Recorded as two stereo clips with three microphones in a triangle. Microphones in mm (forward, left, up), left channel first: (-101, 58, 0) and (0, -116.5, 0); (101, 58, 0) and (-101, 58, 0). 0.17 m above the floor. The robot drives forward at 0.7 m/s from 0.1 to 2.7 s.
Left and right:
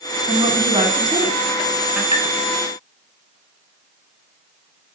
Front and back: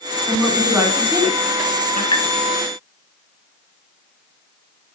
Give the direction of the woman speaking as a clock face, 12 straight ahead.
2 o'clock.